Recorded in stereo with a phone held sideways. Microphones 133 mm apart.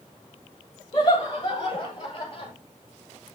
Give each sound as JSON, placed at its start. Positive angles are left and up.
{"t": 0.9, "sound": "laughter", "side_deg": 30, "distance_m": 6.5}